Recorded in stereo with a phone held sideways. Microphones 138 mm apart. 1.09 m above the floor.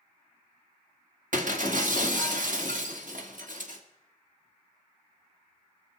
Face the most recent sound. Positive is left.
turn(degrees=-70)  # may be behind; listen again after turning